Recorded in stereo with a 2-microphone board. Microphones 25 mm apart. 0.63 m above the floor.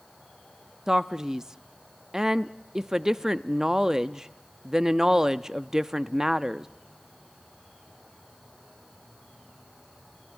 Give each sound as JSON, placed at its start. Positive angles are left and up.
{"t": 0.9, "sound": "a man speaking", "side_deg": -25, "distance_m": 0.5}